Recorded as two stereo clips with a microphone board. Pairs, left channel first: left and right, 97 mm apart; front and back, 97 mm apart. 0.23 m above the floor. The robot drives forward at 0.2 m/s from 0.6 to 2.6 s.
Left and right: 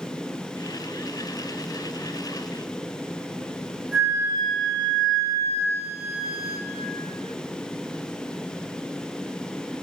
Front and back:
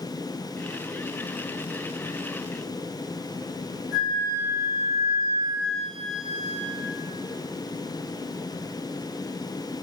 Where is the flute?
140° right, 1.3 m.